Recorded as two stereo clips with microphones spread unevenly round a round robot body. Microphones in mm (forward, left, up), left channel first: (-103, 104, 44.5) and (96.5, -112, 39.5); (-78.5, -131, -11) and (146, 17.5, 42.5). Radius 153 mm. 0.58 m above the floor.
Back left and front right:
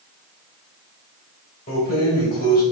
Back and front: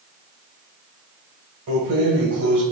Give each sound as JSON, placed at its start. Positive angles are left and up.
{"t": 1.7, "sound": "keys jangling", "azimuth_deg": 70, "distance_m": 2.5}